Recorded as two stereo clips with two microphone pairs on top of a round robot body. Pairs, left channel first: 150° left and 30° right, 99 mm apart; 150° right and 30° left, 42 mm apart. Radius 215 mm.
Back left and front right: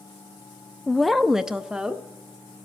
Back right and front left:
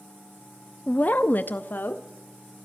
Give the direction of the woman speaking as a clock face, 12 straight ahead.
5 o'clock.